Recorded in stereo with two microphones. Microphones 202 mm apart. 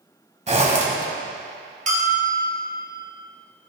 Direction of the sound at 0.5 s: 35° right (ahead or behind).